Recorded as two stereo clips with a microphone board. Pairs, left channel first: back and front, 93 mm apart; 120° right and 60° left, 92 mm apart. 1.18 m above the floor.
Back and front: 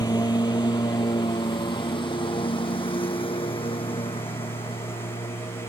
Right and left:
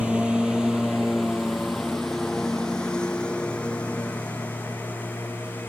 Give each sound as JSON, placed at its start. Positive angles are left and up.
{"t": 0.0, "sound": "a lawn mower", "azimuth_deg": 140}